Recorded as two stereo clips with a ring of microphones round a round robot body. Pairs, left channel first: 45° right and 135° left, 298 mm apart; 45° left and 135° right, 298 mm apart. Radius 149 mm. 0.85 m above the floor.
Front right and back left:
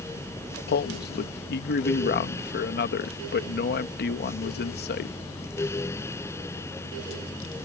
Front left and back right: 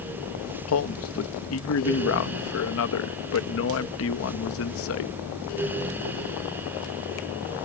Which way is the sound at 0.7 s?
10° left.